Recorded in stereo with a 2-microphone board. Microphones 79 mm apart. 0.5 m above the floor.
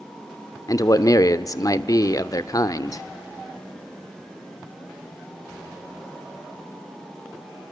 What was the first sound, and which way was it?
A man speaking, 50° left (ahead or behind).